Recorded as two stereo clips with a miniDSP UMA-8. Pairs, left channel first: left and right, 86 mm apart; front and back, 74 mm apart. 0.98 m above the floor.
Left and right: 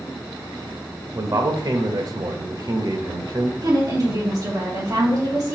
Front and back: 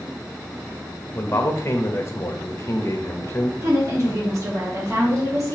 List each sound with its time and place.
1.1 s a man speaking: 50° right, 0.9 m
3.6 s a woman speaking: 130° right, 2 m